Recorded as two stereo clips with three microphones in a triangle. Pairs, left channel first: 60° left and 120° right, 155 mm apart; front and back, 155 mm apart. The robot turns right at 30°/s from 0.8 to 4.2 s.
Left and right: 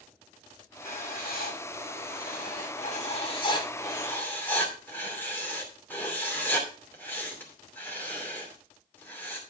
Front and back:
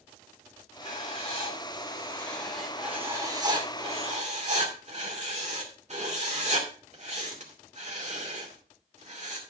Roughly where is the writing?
Ahead left.